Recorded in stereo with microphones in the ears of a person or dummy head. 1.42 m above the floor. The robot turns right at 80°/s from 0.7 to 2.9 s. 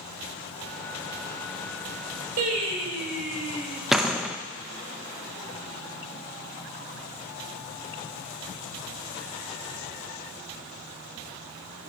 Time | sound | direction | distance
2.4 | singing | 55° right | 2.5 m
3.9 | a door slam | centre (ahead or behind) | 0.9 m